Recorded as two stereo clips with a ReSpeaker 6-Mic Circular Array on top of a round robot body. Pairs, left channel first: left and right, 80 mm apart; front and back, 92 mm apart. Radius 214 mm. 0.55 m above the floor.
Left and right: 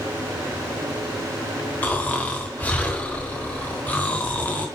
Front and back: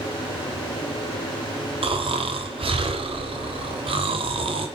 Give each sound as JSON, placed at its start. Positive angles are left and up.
{"t": 1.8, "sound": "snoring", "azimuth_deg": 160, "distance_m": 1.3}